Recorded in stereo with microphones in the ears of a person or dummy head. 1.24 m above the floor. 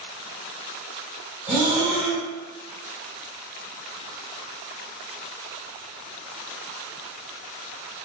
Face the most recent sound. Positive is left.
turn(degrees=-15)  # may be behind; listen again after turning